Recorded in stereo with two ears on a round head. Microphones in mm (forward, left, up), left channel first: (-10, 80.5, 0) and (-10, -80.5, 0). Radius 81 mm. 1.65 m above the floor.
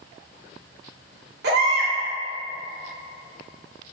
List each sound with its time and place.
1.4 s a baby crying: 65° right (ahead or behind), 1.5 m